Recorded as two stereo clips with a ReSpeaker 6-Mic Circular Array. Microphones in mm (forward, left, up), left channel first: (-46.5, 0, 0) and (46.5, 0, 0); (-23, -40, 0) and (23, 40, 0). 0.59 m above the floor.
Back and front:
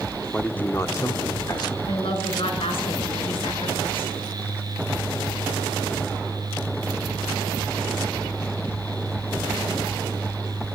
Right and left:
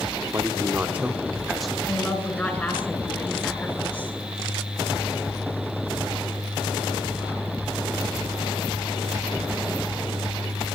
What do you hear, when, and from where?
0.3 s a man speaking: 105° left, 1.3 m; by 1.8 s 155° left, 1.7 m
1.9 s a woman speaking: 165° left, 7.5 m